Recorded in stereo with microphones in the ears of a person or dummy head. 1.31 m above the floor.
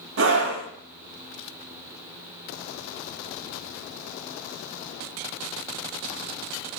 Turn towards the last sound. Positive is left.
turn(degrees=-60)  # may be behind; listen again after turning